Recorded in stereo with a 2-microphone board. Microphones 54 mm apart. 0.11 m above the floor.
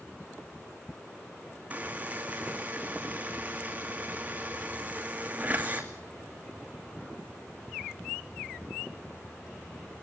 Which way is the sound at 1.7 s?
25° right (ahead or behind).